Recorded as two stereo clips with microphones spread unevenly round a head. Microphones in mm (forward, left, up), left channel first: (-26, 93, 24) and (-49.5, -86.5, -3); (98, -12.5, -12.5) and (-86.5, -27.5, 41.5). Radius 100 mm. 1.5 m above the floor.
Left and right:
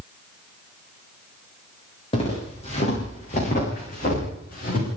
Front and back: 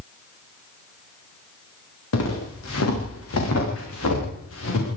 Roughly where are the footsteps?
Ahead.